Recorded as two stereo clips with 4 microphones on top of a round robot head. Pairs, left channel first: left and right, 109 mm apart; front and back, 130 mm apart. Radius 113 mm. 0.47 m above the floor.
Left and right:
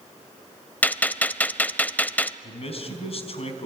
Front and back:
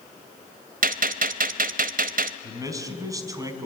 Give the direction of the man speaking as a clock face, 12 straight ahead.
8 o'clock.